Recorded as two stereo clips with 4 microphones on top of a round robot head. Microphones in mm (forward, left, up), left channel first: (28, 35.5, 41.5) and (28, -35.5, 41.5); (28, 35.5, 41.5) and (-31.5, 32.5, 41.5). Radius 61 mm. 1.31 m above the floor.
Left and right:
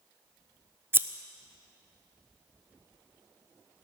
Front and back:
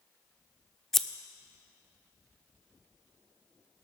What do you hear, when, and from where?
0.9 s scissors: 80° right, 0.5 m